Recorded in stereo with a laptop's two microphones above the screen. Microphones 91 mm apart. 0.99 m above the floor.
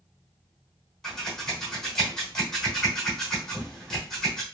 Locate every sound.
1.0 s scissors: 5° left (ahead or behind), 1.1 m